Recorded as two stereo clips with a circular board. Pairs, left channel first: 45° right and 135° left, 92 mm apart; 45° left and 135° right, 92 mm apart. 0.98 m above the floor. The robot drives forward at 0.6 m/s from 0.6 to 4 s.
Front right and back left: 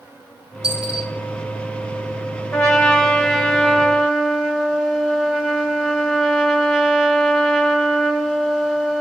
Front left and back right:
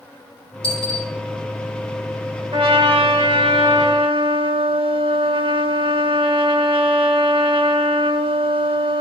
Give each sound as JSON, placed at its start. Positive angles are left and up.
{"t": 0.6, "sound": "a dropped coin", "azimuth_deg": 55, "distance_m": 3.0}
{"t": 2.5, "sound": "a trumpet", "azimuth_deg": -125, "distance_m": 1.7}